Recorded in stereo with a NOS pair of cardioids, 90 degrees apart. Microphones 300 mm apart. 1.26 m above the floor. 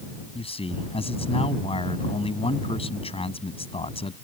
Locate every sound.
0.3 s a man speaking: 20° left